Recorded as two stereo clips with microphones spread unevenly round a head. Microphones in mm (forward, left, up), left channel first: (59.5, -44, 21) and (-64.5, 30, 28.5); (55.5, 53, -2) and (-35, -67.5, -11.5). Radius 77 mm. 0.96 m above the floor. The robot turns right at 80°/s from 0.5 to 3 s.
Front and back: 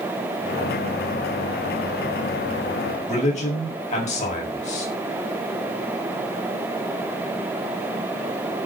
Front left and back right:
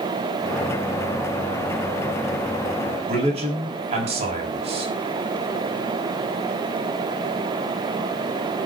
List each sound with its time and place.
3.1 s a man speaking: 75° right, 6 m